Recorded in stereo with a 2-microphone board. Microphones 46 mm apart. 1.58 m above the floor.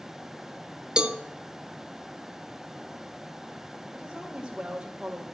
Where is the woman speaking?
20° right (ahead or behind), 2.0 m.